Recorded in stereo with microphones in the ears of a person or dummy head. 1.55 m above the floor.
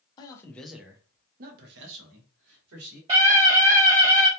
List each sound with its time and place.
0.2 s a man speaking: 25° left (ahead or behind), 0.6 m; by 3.0 s 85° right, 1.1 m
3.1 s a scream: 25° right (ahead or behind), 0.6 m